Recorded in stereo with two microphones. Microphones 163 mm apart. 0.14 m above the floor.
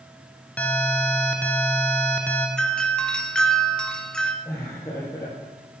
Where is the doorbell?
5° left (ahead or behind), 1.5 m.